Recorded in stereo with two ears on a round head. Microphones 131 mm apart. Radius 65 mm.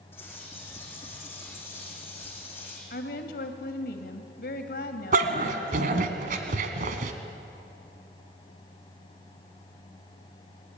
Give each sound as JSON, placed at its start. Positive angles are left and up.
{"t": 0.1, "sound": "a bird", "side_deg": 15, "distance_m": 6.0}
{"t": 2.9, "sound": "a woman speaking", "side_deg": 70, "distance_m": 2.5}
{"t": 5.1, "sound": "a dog barking", "side_deg": -60, "distance_m": 1.6}